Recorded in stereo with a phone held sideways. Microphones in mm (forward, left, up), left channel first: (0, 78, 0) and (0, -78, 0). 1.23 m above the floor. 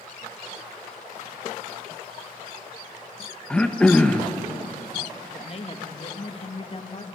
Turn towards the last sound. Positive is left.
turn(degrees=40)  # may be behind; listen again after turning